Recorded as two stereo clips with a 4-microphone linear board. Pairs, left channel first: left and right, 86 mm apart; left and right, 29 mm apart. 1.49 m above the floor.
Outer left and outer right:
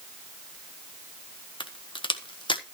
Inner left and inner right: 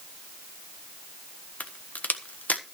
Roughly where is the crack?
Left.